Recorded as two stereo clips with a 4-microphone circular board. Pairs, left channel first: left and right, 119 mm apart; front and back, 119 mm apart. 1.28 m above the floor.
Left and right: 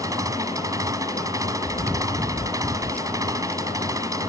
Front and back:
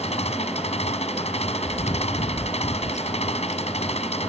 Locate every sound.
0.0 s an engine running: 30° right
1.6 s chewing: 10° left